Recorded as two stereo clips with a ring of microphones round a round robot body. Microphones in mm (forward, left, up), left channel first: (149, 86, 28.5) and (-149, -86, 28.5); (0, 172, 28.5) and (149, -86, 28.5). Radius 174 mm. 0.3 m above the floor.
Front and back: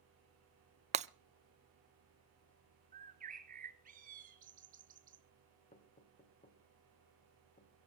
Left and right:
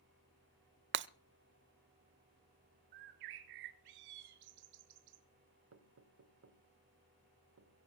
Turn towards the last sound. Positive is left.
turn(degrees=-35)